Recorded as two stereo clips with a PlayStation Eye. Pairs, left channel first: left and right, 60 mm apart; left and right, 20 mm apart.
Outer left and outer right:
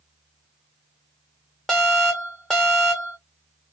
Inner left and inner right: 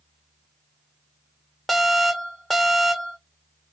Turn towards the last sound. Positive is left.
turn(degrees=10)  # may be behind; listen again after turning